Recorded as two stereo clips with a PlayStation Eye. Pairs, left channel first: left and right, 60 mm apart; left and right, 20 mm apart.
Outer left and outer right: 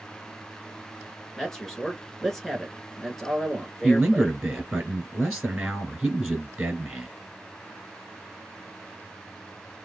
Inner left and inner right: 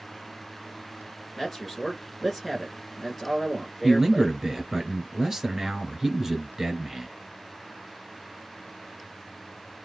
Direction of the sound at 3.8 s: 10° right (ahead or behind).